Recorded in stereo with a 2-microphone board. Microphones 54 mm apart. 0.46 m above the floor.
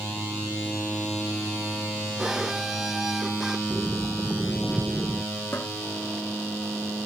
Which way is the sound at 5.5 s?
45° left (ahead or behind).